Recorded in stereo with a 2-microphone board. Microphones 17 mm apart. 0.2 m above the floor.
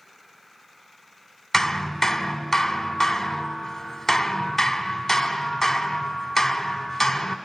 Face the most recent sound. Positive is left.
turn(degrees=15)  # may be behind; listen again after turning